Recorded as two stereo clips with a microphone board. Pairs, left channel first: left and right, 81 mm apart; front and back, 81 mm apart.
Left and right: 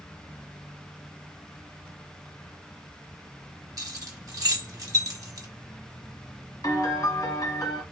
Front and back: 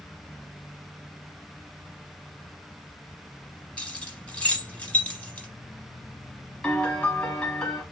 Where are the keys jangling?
70° right, 1.3 m.